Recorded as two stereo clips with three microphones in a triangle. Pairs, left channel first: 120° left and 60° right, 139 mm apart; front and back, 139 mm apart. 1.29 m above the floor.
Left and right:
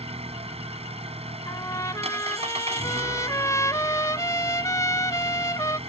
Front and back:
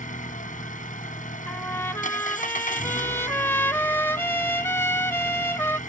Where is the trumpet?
65° left.